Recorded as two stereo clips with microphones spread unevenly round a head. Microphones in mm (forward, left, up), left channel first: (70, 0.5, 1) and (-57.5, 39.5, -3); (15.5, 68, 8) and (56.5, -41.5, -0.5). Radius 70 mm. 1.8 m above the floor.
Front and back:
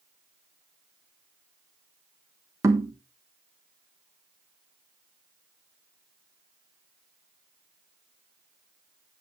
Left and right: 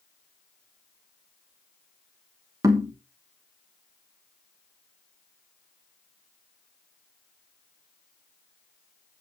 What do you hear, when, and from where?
2.6 s knocking: 130° right, 1.2 m